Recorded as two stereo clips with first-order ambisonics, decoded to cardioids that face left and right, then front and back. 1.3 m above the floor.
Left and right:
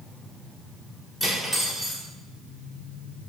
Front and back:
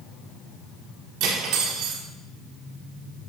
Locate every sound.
1.2 s cutlery clinking: 165° left, 1.7 m